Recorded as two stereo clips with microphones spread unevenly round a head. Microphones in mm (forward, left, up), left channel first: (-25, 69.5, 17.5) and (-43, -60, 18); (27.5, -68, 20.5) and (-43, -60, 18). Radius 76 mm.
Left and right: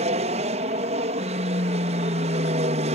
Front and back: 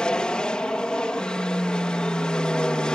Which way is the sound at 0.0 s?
80° right.